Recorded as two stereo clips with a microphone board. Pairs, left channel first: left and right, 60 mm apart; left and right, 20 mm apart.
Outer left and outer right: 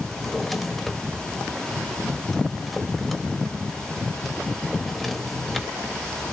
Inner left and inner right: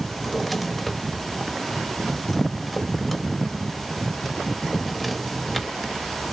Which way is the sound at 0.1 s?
Centre (ahead or behind).